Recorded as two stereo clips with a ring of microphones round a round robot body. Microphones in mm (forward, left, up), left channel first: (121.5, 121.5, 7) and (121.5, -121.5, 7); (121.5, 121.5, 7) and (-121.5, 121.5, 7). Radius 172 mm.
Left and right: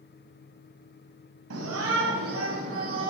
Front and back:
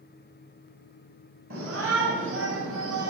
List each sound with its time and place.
1.5 s a shout: 125° right, 2.5 m; by 3.1 s 165° right, 2.5 m